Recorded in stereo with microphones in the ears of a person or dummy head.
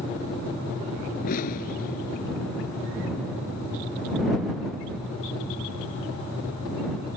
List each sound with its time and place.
1.2 s an explosion: 45° left (ahead or behind)